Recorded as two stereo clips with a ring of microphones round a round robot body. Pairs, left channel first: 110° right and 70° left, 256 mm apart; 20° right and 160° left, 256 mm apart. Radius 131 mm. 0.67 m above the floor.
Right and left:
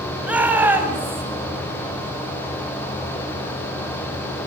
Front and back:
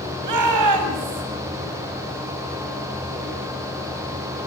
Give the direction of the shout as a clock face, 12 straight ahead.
7 o'clock.